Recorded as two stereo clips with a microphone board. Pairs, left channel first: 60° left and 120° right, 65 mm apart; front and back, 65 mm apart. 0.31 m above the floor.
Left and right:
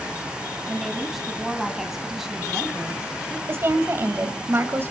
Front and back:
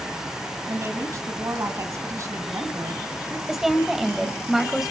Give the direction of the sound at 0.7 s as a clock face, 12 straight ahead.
7 o'clock.